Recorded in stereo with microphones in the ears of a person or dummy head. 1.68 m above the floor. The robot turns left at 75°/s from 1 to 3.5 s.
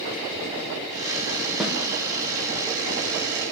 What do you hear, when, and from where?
1.6 s a snare drum: 5° left (ahead or behind), 1.5 m; by 1.8 s 10° right (ahead or behind), 1.5 m